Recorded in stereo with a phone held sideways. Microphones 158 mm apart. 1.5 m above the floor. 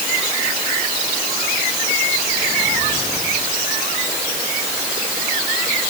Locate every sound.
Only background noise.